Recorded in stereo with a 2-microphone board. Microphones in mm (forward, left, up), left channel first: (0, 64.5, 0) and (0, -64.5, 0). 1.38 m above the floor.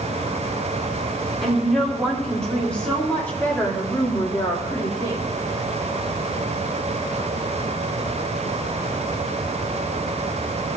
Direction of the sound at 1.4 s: Centre (ahead or behind).